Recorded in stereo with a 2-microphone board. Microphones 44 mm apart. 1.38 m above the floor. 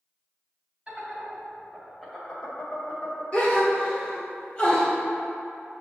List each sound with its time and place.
0.9 s laughter: 25° right (ahead or behind), 1.9 m; by 3.2 s 50° left (ahead or behind), 1.1 m
3.3 s a gasp: 30° left (ahead or behind), 1.1 m